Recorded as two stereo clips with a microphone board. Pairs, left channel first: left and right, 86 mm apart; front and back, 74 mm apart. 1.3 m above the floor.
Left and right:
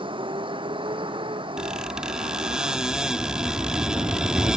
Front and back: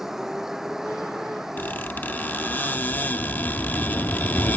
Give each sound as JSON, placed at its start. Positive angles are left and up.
{"t": 0.0, "sound": "a vehicle", "azimuth_deg": -95}
{"t": 1.6, "sound": "a squeak", "azimuth_deg": -25}